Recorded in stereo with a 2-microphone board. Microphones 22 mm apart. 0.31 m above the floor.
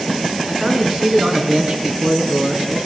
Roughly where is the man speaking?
Right.